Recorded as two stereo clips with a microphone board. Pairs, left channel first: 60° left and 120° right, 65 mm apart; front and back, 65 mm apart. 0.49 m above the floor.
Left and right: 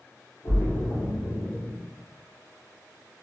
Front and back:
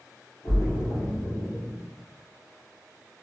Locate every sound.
0.4 s a splash: 30° left, 1.3 m